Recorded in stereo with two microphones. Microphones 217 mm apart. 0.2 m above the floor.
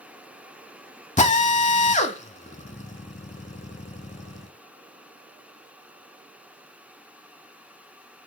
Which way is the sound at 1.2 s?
35° left (ahead or behind).